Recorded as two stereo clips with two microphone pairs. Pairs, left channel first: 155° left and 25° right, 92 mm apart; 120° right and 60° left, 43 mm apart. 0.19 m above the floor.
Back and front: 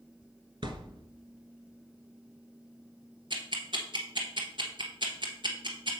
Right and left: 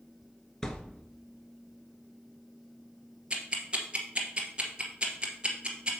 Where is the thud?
45° right, 1.0 m.